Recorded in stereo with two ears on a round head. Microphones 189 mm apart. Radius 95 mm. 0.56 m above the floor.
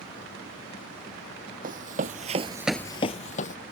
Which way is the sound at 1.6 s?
40° right (ahead or behind).